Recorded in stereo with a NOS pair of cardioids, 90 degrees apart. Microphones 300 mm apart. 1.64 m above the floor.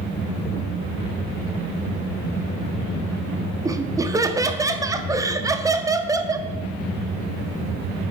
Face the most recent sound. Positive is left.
turn(degrees=-10)